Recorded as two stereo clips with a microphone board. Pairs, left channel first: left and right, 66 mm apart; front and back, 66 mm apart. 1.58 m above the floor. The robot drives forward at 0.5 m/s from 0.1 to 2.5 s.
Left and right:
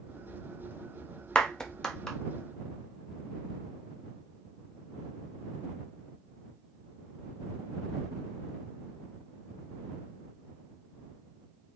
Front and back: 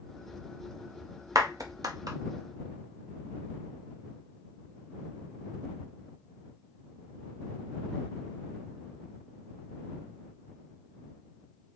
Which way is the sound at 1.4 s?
165° left.